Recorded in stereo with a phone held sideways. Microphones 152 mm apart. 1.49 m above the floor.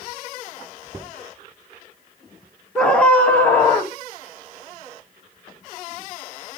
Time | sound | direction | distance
2.8 | a scream | 5° left (ahead or behind) | 1.9 m